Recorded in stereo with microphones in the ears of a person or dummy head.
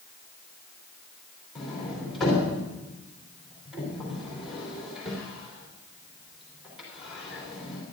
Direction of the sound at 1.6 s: Centre (ahead or behind).